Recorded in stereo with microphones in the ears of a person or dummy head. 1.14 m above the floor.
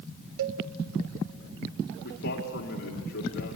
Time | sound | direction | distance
0.4 | a cowbell | 70° right (ahead or behind) | 0.9 m
2.0 | a man speaking | 50° left (ahead or behind) | 2.5 m